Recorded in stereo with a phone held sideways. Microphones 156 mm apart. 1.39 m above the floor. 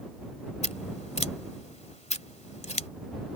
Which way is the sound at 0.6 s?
45° left (ahead or behind).